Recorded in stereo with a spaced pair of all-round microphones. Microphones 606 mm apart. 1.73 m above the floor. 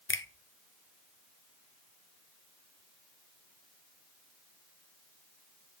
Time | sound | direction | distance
0.1 | a finger snap | 20° left (ahead or behind) | 0.6 m